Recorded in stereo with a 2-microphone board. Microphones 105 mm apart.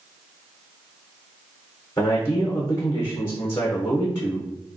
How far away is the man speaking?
About 0.8 m.